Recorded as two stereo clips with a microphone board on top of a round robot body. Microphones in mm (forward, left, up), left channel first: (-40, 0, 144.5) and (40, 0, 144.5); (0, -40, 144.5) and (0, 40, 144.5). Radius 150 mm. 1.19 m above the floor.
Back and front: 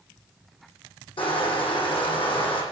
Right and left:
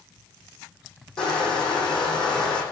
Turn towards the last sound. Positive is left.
turn(degrees=-175)